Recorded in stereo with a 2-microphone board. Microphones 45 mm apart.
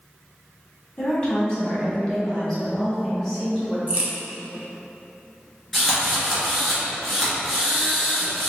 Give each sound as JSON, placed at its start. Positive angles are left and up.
{"t": 1.0, "sound": "a woman speaking", "side_deg": 20, "distance_m": 2.0}
{"t": 3.9, "sound": "a crack", "side_deg": -35, "distance_m": 1.0}
{"t": 5.7, "sound": "a drill", "side_deg": 0, "distance_m": 1.9}